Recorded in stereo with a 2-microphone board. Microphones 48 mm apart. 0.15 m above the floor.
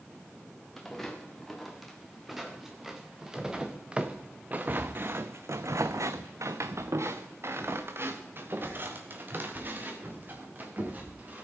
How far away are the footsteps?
About 3 m.